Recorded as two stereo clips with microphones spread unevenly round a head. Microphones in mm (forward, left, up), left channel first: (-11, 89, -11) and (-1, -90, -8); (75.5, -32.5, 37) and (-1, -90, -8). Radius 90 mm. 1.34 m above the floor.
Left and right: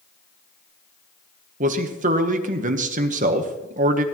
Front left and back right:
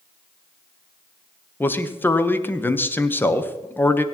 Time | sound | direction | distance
1.6 | a man speaking | 35° right | 1.1 m